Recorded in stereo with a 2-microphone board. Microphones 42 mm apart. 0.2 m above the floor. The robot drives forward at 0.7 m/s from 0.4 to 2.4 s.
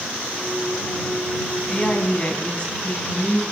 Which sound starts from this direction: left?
A woman speaking, at 1.7 s.